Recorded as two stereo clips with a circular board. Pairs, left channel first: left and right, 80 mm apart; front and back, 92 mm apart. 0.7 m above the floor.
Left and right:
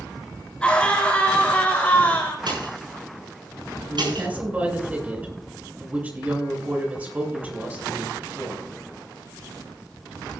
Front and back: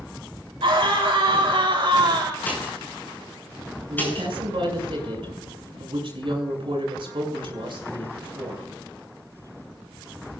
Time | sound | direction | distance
0.6 | a scream | 170° left | 4.5 m
2.5 | a pop | 70° right | 9 m
3.9 | a woman speaking | 160° right | 6.5 m